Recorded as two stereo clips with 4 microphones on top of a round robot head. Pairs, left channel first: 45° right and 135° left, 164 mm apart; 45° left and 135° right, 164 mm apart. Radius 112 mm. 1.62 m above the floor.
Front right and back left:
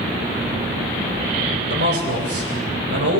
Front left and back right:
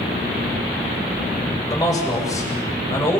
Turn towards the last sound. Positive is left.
turn(degrees=120)